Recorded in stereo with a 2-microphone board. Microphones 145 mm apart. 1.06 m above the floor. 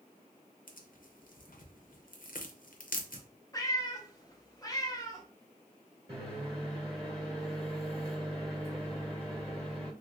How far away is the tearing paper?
About 0.5 m.